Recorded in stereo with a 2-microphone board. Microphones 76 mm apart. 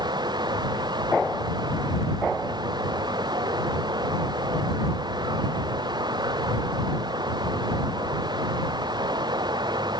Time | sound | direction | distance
0.0 | running water | 75° right (ahead or behind) | ?